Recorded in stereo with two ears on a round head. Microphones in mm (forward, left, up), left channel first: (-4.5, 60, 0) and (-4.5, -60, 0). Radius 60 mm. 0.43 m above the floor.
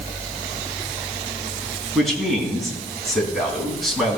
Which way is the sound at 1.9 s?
Centre (ahead or behind).